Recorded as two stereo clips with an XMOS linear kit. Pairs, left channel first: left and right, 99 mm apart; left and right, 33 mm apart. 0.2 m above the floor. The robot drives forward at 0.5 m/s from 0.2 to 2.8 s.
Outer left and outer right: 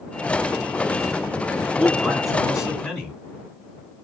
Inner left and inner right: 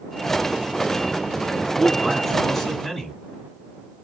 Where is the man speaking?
Centre (ahead or behind), 1.8 m.